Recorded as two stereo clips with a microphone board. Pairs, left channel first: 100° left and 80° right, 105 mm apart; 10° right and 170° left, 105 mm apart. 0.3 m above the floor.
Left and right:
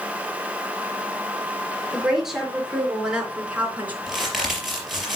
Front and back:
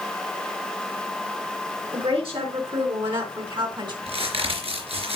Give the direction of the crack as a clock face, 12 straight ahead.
6 o'clock.